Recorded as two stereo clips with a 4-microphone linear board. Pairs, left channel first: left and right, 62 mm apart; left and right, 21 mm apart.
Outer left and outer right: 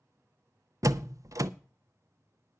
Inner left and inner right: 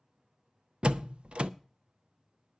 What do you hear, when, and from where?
0.8 s a door slam: 60° right (ahead or behind), 0.5 m